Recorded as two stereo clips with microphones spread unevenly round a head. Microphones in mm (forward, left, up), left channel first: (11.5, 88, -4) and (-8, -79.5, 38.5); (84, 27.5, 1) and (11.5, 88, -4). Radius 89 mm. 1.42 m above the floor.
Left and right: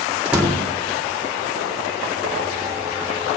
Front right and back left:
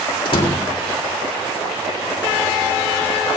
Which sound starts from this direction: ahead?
A door slam, at 0.2 s.